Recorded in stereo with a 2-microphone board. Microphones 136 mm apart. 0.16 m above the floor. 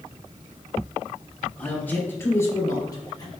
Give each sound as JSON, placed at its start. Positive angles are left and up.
{"t": 1.6, "sound": "a man speaking", "side_deg": 10, "distance_m": 4.0}